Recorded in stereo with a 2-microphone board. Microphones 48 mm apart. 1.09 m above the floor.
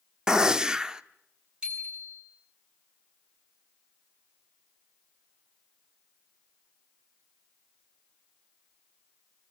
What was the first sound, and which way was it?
A gunshot, 15° right (ahead or behind).